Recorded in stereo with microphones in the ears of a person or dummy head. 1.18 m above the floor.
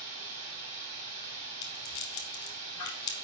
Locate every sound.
0.0 s running water: 40° right (ahead or behind), 2 m
1.6 s a rattle: 20° left (ahead or behind), 1.2 m